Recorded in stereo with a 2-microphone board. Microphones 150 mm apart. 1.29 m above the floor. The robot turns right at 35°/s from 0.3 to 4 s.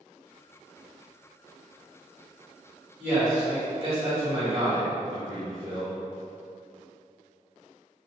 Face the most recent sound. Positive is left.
turn(degrees=-135)